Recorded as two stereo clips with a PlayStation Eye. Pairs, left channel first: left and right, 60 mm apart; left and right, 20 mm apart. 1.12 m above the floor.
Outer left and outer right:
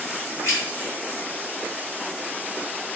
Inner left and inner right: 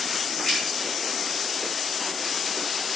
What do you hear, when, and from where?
0.4 s keys jangling: 40° left (ahead or behind), 1.2 m